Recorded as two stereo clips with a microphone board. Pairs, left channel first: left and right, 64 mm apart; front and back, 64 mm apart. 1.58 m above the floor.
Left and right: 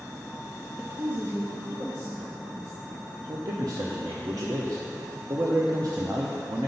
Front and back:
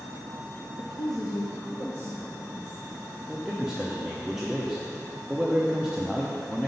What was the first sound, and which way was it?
A woman speaking, 10° right.